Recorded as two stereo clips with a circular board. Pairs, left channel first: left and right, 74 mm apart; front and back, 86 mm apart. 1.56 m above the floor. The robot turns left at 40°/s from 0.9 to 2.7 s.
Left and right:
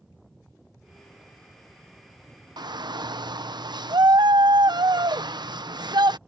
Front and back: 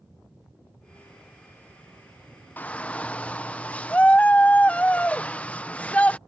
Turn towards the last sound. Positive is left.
turn(degrees=-75)